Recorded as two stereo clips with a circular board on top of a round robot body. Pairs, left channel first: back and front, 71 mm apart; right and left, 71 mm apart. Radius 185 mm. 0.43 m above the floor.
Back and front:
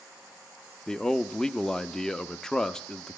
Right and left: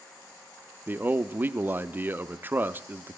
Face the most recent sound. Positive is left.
turn(degrees=110)